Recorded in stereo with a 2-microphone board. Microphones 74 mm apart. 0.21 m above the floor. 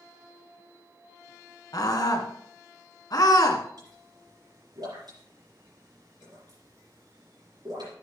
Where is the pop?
75° right (ahead or behind), 5.5 m.